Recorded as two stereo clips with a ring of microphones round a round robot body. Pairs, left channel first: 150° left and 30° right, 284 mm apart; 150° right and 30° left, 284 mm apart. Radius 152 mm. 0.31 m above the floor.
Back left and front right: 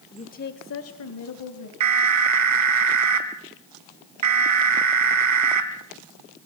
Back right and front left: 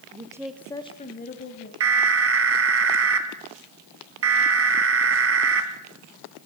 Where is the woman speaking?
85° left, 1.5 m; by 1.7 s 160° left, 2.5 m.